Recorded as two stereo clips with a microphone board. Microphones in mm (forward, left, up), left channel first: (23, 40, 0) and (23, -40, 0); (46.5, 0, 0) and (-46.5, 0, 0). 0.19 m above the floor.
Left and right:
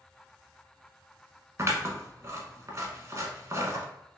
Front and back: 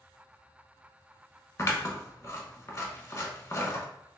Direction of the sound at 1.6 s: 45° right.